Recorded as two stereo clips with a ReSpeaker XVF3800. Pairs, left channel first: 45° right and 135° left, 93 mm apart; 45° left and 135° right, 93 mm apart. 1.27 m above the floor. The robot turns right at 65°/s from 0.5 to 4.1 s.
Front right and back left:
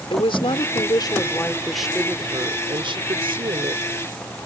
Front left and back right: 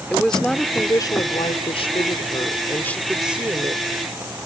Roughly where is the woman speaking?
Ahead right.